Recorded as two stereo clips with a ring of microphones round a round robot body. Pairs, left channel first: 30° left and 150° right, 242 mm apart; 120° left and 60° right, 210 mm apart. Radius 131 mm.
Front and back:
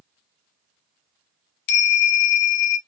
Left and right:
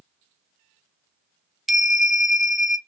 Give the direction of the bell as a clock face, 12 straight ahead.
11 o'clock.